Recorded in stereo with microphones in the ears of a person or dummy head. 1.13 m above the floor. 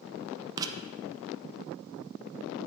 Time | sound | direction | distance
0.6 | writing | 20° right (ahead or behind) | 0.8 m